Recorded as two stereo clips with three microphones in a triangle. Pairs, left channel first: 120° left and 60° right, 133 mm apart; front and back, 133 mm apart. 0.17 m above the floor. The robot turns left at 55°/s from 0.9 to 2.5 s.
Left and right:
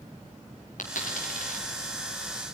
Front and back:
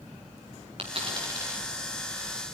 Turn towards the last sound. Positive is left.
turn(degrees=50)